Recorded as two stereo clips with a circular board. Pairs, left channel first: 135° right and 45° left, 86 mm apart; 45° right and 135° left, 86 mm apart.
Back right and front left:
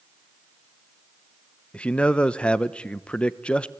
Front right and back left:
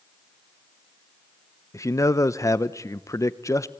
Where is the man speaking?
65° right, 0.7 m.